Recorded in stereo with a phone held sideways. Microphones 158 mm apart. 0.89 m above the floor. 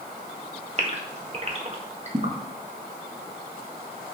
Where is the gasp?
40° right (ahead or behind), 1.4 m.